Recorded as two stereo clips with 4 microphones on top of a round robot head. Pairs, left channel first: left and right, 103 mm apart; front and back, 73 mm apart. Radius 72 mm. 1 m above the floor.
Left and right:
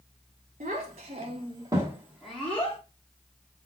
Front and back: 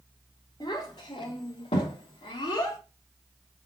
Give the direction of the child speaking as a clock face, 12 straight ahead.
2 o'clock.